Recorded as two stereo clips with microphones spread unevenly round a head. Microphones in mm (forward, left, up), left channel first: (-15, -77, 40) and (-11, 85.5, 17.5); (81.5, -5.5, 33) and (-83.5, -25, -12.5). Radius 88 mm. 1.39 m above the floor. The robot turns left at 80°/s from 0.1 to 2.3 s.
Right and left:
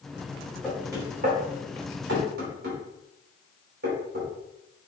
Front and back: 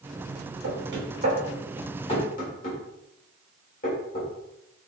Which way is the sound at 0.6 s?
Straight behind.